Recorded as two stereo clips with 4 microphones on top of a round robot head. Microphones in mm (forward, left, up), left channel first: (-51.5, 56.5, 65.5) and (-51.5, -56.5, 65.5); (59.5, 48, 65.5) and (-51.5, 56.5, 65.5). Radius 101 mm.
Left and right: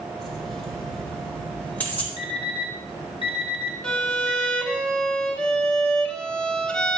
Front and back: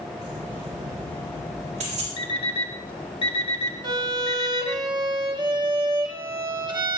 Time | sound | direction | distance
0.2 | keys jangling | straight behind | 5 m
2.2 | an alarm clock | 35° left | 1.5 m
3.8 | a violin | 170° left | 1.2 m